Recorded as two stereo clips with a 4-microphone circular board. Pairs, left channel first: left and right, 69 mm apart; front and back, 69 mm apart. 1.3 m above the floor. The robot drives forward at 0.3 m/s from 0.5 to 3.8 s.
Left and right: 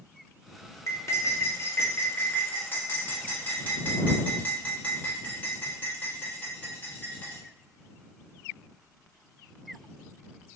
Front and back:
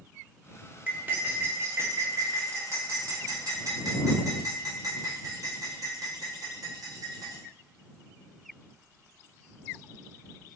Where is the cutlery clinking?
120° left, 0.7 m; by 7.4 s 155° left, 1.3 m.